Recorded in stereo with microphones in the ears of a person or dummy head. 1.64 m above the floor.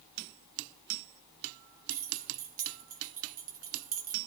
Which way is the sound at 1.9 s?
40° right (ahead or behind).